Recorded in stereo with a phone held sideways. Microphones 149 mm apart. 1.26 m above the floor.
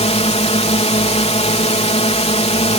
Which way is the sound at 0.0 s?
45° left (ahead or behind).